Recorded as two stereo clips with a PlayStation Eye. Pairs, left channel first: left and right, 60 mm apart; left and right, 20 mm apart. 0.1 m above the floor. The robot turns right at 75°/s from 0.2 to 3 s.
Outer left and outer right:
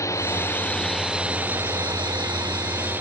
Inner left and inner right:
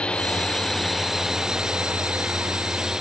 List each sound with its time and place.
0.0 s a drone: 60° left (ahead or behind); by 3.0 s 40° right (ahead or behind)